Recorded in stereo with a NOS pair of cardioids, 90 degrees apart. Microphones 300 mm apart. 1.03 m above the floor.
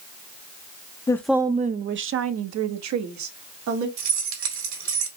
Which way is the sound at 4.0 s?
65° right.